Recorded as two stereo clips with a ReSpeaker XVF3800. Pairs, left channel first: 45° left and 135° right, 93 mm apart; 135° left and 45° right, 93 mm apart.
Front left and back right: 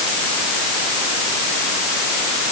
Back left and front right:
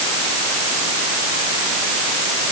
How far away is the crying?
No crying in this recording.